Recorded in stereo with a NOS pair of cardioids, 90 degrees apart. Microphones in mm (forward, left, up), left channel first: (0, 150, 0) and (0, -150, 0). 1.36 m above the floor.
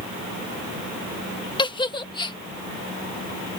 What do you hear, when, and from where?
1.6 s a giggle: 15° left